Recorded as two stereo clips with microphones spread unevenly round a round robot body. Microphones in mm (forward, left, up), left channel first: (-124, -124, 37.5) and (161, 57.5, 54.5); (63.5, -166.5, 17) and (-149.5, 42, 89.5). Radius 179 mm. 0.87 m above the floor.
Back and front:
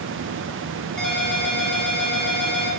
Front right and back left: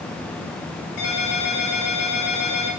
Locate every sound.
1.0 s a ringtone: 60° right, 4.5 m